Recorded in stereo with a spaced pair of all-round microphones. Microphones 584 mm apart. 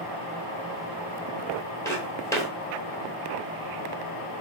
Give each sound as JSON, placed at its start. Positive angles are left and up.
{"t": 1.9, "sound": "footsteps", "side_deg": 5, "distance_m": 1.3}